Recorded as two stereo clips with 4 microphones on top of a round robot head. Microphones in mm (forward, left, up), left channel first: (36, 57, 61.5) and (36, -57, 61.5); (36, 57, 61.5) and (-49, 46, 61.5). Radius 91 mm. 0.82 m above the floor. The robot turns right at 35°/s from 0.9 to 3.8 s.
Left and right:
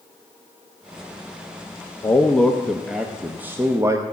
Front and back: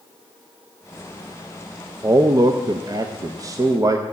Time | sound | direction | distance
2.0 | a man speaking | 155° left | 0.7 m